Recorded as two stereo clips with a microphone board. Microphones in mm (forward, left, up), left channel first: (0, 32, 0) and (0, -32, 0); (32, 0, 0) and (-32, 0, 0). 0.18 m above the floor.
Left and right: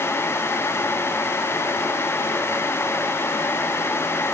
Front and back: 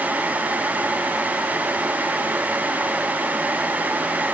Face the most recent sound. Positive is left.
No sound to turn to.